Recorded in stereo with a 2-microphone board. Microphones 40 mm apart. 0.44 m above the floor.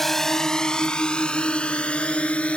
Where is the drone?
5° left (ahead or behind); by 2.6 s 30° left (ahead or behind).